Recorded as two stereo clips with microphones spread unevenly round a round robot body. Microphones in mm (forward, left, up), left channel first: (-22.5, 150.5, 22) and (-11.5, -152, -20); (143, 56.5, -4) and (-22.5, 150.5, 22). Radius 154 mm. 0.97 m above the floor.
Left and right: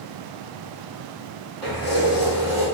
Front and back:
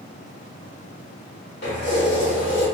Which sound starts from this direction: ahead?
Keys jangling, at 1.6 s.